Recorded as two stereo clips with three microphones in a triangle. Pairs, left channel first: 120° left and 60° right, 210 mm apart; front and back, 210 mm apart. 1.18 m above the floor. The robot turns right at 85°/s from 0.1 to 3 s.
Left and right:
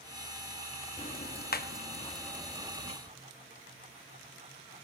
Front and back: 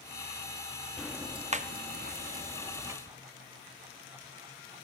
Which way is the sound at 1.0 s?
85° left.